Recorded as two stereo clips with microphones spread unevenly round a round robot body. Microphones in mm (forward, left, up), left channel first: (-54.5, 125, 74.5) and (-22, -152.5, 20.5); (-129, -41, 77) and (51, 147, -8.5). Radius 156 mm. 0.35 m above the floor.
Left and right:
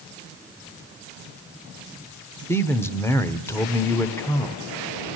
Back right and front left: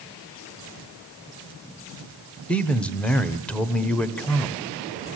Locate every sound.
2.5 s a man speaking: straight ahead, 1.4 m